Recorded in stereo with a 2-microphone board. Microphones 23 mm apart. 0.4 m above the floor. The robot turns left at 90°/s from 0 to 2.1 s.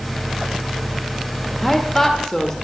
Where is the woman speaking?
5° right (ahead or behind), 1.4 m; by 2.5 s 10° left (ahead or behind), 1.4 m.